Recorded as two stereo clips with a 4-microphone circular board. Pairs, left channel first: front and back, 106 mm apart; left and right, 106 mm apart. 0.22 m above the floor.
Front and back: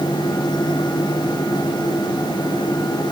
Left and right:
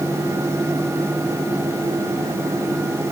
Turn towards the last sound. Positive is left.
No sound to turn to.